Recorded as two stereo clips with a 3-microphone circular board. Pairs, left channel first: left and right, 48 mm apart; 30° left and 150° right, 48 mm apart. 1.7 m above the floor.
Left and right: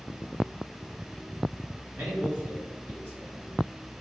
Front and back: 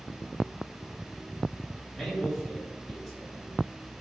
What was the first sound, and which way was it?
A man speaking, 55° right.